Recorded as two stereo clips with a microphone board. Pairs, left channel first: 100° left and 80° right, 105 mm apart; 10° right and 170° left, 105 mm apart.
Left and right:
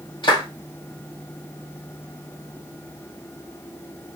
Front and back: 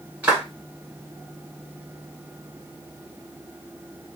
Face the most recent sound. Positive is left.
turn(degrees=95)